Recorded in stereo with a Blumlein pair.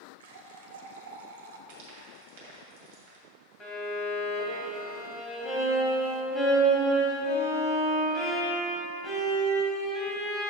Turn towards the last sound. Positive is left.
turn(degrees=20)